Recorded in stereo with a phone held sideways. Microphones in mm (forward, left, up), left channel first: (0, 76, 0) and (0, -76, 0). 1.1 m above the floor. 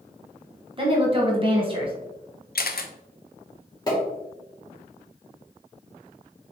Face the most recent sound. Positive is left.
turn(degrees=25)  # may be behind; listen again after turning